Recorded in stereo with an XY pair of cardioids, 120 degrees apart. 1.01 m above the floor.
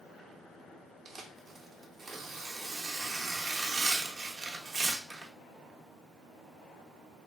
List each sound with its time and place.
1.1 s tearing paper: 30° right, 0.5 m